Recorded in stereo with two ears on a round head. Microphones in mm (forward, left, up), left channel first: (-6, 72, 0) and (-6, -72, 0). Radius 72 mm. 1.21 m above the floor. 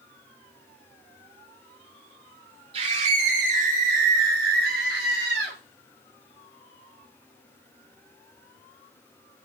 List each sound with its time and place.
2.7 s a scream: 40° right (ahead or behind), 3.5 m; by 5.6 s 80° right, 4.5 m